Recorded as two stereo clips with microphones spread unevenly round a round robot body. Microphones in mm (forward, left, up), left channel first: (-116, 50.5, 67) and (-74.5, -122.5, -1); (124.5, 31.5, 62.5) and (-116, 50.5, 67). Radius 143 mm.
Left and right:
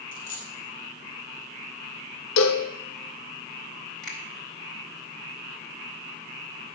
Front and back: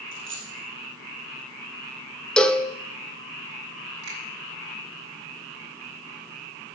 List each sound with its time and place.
0.1 s a dropped coin: 135° left, 3 m
2.4 s a cowbell: 80° left, 0.6 m
4.0 s a finger snap: 165° right, 4 m